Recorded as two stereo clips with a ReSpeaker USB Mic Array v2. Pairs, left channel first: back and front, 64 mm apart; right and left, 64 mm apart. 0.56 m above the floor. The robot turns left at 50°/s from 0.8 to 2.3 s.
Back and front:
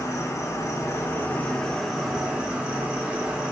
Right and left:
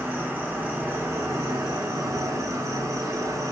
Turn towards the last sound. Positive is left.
turn(degrees=70)